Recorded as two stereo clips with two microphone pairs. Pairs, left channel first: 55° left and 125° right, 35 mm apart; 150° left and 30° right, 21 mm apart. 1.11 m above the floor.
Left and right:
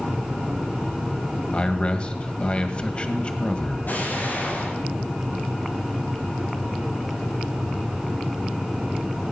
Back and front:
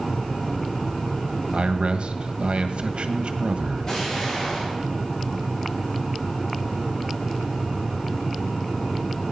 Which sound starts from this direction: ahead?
A man speaking, at 1.5 s.